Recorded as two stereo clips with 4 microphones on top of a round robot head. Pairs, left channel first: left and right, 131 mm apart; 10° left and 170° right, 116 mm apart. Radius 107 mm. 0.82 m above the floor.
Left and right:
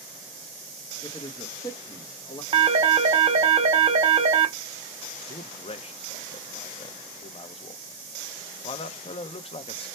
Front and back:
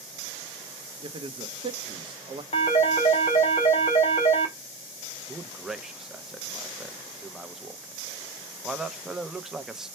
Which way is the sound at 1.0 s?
150° left.